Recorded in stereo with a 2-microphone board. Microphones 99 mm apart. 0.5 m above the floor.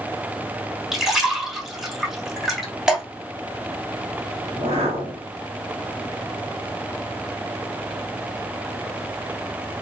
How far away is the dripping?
About 1.5 m.